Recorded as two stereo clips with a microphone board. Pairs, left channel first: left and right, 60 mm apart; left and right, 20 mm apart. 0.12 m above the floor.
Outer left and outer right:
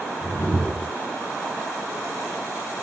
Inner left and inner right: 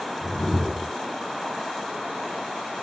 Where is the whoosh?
10° right (ahead or behind), 1.3 m.